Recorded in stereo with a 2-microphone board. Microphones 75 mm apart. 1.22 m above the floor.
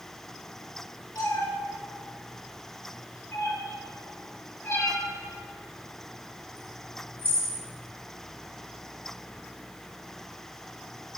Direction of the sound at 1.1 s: 70° left (ahead or behind).